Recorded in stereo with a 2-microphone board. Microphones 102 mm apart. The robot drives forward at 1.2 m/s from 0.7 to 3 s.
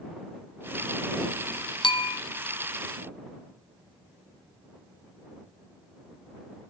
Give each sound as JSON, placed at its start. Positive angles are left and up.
{"t": 1.8, "sound": "a bell", "side_deg": 50, "distance_m": 0.8}